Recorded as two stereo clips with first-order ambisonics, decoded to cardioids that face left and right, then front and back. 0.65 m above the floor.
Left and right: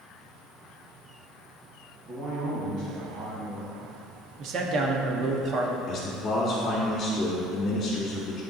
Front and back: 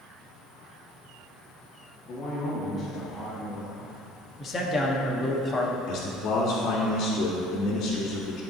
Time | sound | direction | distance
2.1 | a man speaking | 35° right | 1.1 m
4.4 | a man speaking | 75° right | 0.8 m
5.9 | a man speaking | 20° left | 0.9 m